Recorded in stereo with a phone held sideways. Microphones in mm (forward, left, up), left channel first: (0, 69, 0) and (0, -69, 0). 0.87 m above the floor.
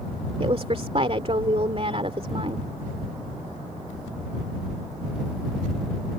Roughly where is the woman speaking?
Right.